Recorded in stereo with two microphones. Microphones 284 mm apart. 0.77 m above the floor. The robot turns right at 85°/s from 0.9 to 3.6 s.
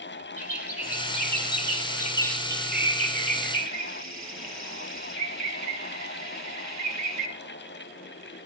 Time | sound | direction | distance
0.4 | a bird | 55° left | 3 m